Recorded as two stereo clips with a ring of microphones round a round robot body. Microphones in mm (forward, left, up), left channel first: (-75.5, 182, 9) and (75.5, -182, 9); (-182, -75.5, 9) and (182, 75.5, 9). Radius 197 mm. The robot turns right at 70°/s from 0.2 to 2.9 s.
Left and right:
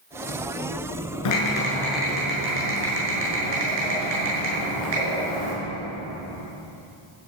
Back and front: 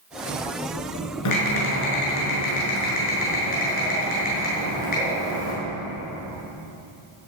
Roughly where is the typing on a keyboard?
Behind left.